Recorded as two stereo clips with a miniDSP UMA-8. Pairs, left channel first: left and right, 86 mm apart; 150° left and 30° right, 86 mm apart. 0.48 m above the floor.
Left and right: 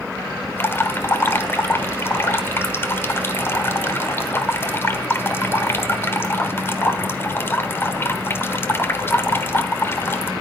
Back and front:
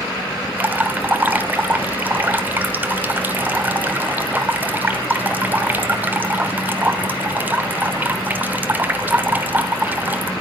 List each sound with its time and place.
0.6 s dripping: 35° left, 1.3 m